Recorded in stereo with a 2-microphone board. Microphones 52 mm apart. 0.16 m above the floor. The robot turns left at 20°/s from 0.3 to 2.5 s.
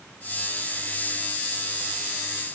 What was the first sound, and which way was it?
Only background noise.